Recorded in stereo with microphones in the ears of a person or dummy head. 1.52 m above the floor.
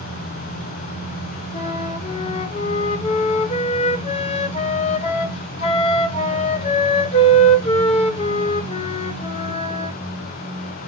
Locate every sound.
1.5 s a flute: 30° left (ahead or behind), 0.8 m